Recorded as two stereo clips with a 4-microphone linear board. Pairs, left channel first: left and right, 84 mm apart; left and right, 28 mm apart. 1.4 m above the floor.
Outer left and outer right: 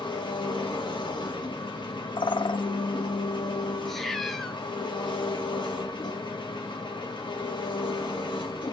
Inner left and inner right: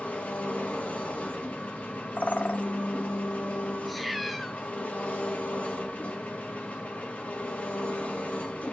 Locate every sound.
0.0 s an engine running: 65° left (ahead or behind), 1.4 m
2.2 s a bird: 70° left (ahead or behind), 0.5 m
3.9 s a cat meowing: 5° left (ahead or behind), 0.7 m